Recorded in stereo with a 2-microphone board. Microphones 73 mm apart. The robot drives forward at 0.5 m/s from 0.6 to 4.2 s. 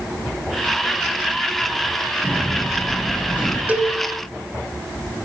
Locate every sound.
2.2 s a sliding door: 20° left (ahead or behind), 8 m; by 3.6 s 25° left (ahead or behind), 7.5 m
3.7 s a cowbell: 25° right (ahead or behind), 0.9 m; by 4.0 s 20° right (ahead or behind), 0.9 m